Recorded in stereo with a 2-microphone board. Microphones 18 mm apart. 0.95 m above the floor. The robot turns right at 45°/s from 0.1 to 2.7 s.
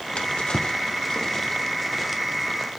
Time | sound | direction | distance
0.2 | a drawer | 70° left (ahead or behind) | 1.0 m